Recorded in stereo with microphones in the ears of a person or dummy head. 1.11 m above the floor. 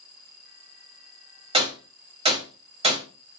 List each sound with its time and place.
1.5 s a gunshot: 25° right (ahead or behind), 1.4 m